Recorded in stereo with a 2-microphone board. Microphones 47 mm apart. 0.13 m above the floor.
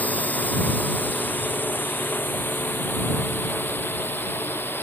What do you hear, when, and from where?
0.0 s a drone: 35° left (ahead or behind); by 4.8 s 50° left (ahead or behind)